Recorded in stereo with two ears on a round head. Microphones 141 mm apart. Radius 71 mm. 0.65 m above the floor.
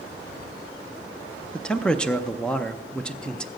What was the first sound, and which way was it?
A man speaking, 5° left (ahead or behind).